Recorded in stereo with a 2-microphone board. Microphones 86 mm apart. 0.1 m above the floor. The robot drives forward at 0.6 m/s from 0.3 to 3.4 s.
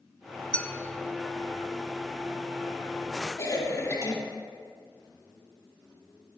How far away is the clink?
About 0.7 m.